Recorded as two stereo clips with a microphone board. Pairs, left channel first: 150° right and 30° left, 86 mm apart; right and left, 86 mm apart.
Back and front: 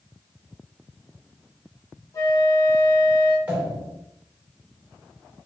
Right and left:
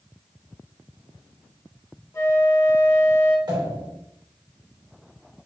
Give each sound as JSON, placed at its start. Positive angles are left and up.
{"t": 2.1, "sound": "a flute", "azimuth_deg": -130, "distance_m": 1.5}
{"t": 3.5, "sound": "a pop", "azimuth_deg": 100, "distance_m": 2.0}